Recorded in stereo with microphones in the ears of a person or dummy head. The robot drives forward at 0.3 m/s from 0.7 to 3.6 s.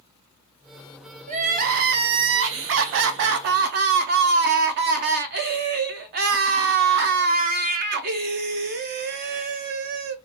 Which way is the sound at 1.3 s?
40° right (ahead or behind).